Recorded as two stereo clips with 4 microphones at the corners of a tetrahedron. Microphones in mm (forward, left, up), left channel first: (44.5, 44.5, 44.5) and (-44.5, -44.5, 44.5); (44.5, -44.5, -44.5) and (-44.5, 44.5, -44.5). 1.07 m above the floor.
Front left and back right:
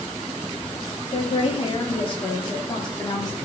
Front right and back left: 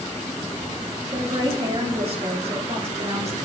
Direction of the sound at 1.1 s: 85° left.